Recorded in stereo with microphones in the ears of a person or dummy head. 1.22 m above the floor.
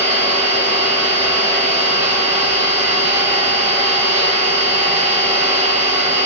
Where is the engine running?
55° right (ahead or behind), 1.7 m.